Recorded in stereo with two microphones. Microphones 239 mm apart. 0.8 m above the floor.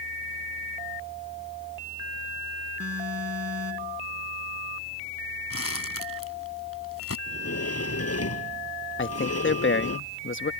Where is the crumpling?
70° left (ahead or behind).